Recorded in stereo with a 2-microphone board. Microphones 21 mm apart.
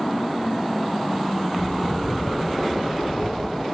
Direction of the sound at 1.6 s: 80° left.